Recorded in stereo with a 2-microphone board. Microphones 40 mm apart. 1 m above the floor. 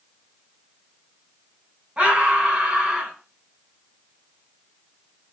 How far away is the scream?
About 8.5 m.